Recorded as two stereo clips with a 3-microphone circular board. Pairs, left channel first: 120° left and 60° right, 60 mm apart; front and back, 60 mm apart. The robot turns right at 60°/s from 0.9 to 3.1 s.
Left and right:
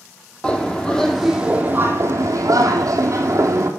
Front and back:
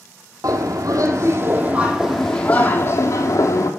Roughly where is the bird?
Behind.